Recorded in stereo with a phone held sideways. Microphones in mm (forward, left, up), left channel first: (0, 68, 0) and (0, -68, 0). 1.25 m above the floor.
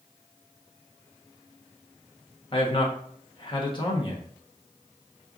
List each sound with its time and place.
2.5 s a man speaking: 40° left (ahead or behind), 1.0 m